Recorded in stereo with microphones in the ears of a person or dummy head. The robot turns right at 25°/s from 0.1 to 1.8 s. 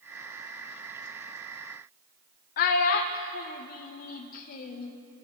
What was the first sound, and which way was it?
A child speaking, 50° left (ahead or behind).